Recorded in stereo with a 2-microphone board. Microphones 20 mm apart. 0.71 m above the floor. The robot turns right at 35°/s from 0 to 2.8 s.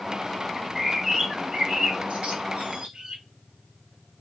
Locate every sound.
0.6 s a bird: 20° right (ahead or behind), 0.7 m; by 3.2 s 80° right, 0.7 m